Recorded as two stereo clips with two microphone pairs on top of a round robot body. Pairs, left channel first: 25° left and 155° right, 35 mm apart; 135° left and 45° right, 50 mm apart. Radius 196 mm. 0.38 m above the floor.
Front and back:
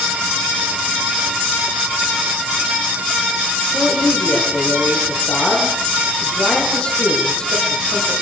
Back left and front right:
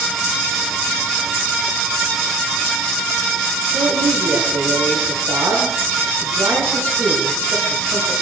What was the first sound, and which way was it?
A man speaking, 35° right.